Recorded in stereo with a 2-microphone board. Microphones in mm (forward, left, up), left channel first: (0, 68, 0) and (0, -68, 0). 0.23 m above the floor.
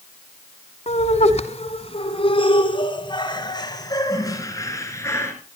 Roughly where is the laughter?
Left.